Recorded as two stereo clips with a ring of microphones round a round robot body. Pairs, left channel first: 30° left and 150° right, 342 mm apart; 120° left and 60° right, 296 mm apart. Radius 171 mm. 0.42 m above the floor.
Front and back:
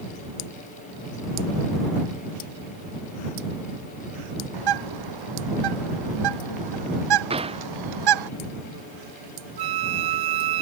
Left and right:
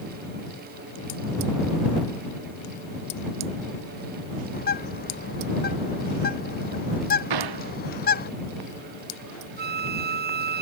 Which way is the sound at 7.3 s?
75° right.